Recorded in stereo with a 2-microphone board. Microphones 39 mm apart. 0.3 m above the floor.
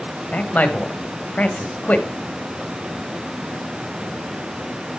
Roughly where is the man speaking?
Left.